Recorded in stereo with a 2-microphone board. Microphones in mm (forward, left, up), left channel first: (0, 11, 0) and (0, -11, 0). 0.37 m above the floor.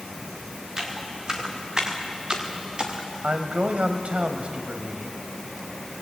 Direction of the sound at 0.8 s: 25° right (ahead or behind).